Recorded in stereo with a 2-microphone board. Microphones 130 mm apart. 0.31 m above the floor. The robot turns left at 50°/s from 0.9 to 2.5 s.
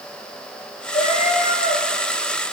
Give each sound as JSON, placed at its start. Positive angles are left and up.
{"t": 0.9, "sound": "a cat meowing", "azimuth_deg": 125, "distance_m": 4.5}